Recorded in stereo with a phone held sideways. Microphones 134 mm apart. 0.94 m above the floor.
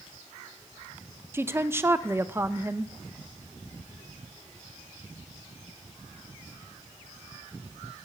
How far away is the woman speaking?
About 0.6 m.